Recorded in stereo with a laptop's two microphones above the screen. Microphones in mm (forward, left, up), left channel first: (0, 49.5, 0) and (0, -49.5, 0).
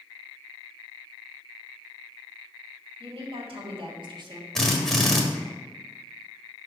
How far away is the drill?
About 1.4 m.